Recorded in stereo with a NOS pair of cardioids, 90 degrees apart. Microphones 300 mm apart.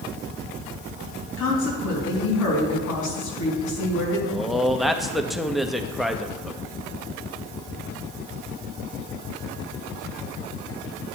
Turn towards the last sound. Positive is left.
turn(degrees=0)